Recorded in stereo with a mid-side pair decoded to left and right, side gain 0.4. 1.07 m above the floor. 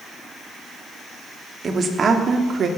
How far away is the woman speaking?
About 2.5 m.